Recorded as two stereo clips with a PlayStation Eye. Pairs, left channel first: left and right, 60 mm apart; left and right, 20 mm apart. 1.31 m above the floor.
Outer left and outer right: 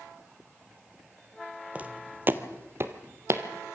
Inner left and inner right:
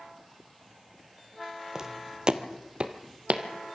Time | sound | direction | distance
1.8 | footsteps | 25° right (ahead or behind) | 1.4 m